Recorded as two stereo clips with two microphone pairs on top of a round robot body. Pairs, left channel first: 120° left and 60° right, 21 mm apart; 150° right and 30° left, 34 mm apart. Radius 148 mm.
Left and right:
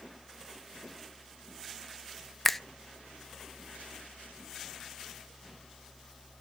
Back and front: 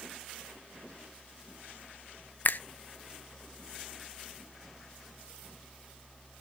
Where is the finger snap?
165° right, 0.6 m.